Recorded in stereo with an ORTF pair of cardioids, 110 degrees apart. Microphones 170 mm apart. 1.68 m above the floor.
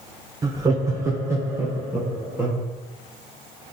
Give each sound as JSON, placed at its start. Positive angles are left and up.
{"t": 0.4, "sound": "laughter", "azimuth_deg": -25, "distance_m": 0.9}